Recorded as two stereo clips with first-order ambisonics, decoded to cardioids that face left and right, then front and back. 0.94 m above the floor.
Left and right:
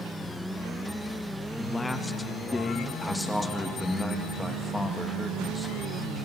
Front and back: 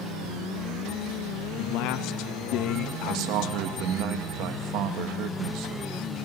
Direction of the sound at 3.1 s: 175° left.